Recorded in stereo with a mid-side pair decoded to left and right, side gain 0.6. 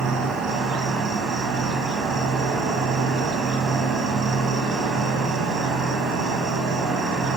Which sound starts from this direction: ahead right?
An insect, at 0.0 s.